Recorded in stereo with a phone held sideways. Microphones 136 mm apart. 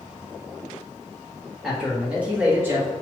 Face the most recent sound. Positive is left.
turn(degrees=-25)  # may be behind; listen again after turning